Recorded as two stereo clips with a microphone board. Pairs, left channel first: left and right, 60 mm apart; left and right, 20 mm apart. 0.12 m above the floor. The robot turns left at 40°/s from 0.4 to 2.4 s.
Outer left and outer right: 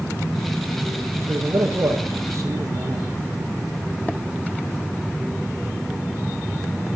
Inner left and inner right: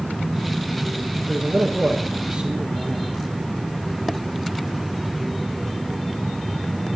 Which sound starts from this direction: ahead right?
A man speaking, at 1.3 s.